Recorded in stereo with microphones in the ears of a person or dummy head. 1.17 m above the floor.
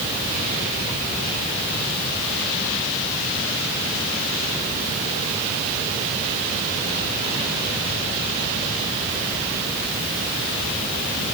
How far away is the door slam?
I don't hear a door slam.